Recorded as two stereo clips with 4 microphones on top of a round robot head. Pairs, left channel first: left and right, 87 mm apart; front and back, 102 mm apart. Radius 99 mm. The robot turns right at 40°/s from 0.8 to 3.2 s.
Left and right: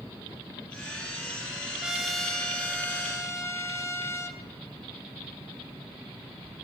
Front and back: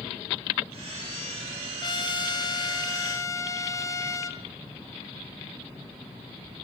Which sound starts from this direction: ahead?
A trumpet, at 1.8 s.